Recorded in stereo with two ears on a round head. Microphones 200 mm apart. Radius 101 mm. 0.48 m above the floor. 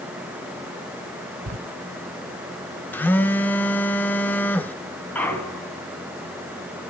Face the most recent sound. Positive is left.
turn(degrees=5)  # may be behind; listen again after turning